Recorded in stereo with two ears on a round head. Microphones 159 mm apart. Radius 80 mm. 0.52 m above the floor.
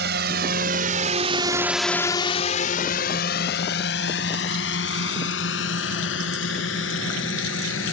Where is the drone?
65° right (ahead or behind); by 7.9 s 80° left.